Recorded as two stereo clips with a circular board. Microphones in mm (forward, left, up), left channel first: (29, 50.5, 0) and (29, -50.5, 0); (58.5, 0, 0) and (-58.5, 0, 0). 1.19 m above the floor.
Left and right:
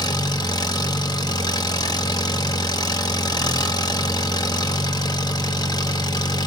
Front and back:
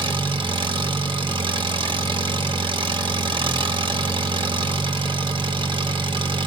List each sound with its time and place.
0.0 s an engine running: 135° left, 1.6 m